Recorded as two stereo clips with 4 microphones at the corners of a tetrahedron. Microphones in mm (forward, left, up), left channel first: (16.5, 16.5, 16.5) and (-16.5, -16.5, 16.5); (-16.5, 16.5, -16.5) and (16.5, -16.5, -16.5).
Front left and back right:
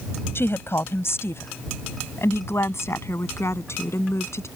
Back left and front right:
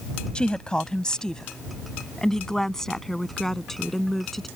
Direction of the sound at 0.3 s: 65° left.